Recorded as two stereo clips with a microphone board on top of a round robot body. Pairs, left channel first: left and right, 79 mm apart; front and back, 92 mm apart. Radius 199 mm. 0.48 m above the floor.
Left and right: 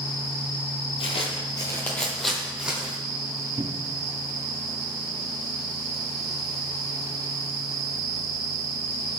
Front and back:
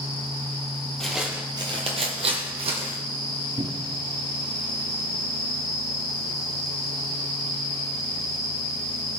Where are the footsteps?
85° left, 1.0 m; by 3.0 s 165° right, 1.9 m.